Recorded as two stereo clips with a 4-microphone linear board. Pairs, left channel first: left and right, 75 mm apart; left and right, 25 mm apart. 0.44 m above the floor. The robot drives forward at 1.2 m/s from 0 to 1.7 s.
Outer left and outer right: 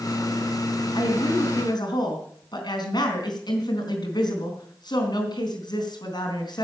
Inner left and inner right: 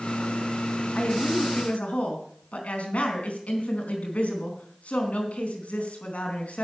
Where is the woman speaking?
75° left (ahead or behind), 3.5 m; by 6.6 s 65° left (ahead or behind), 4 m.